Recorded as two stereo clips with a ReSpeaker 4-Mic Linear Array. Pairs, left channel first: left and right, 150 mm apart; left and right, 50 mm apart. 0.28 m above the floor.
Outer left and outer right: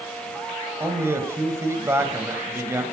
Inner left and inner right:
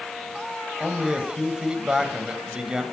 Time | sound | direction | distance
0.8 | a man speaking | 20° right (ahead or behind) | 1.4 m